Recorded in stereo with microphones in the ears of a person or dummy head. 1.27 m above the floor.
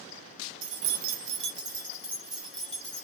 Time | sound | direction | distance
0.6 | keys jangling | 70° right (ahead or behind) | 0.5 m